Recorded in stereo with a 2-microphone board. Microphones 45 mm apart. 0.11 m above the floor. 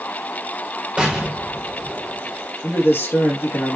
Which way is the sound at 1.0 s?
10° right (ahead or behind).